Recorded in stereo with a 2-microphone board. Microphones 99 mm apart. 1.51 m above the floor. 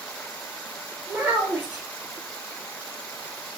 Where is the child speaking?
10° right (ahead or behind), 1.1 m.